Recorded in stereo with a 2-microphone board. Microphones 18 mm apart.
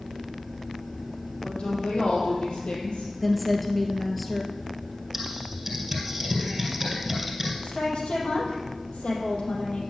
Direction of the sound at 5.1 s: 15° right (ahead or behind).